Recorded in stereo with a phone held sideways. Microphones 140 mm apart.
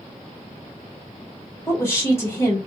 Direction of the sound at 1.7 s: 20° left (ahead or behind).